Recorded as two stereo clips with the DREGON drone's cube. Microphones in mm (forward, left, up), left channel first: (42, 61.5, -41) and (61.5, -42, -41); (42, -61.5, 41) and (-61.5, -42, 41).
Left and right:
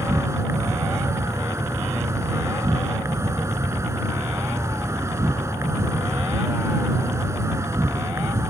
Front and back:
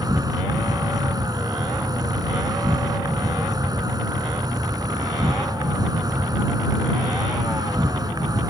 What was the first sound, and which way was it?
An insect, 140° right.